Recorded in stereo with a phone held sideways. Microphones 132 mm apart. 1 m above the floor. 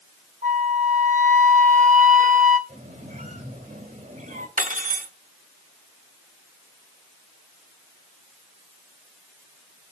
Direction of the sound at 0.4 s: 70° right (ahead or behind).